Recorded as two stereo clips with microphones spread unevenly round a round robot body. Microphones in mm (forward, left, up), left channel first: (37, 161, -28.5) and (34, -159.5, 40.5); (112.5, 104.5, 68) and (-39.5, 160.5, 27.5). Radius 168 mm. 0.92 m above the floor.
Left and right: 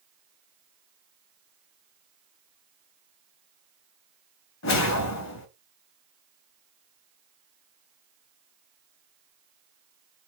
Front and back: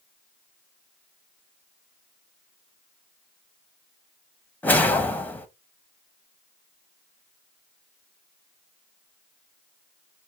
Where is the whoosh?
65° left, 1.0 m.